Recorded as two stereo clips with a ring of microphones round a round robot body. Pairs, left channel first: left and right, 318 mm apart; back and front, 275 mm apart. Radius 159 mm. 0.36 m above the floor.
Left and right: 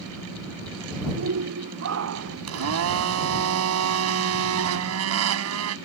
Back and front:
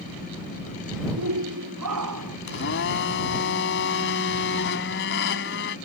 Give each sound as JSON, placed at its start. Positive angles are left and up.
{"t": 1.2, "sound": "a shout", "azimuth_deg": -45}
{"t": 2.5, "sound": "a blender", "azimuth_deg": -130}